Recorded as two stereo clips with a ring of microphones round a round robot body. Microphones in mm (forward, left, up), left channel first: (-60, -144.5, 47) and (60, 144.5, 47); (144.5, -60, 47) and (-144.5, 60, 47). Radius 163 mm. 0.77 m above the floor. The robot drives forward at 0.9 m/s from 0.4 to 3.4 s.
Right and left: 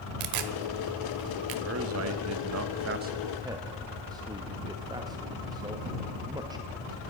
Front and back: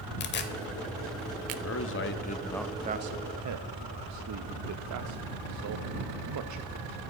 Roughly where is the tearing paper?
Ahead left.